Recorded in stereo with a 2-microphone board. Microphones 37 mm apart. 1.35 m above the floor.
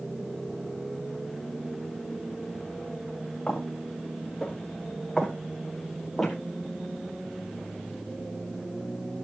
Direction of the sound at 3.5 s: 15° left (ahead or behind).